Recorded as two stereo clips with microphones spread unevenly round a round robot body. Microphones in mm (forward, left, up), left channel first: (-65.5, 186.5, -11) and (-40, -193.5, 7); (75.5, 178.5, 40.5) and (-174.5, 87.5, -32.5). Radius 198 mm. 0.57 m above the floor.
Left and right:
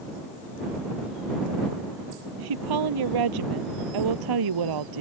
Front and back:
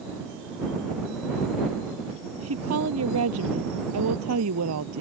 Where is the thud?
I don't hear a thud.